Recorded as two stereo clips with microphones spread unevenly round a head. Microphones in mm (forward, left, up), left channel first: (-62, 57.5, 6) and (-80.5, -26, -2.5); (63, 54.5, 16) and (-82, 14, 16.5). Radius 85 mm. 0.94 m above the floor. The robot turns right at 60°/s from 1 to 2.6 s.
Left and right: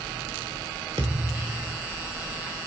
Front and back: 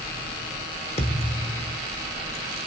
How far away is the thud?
About 1.1 m.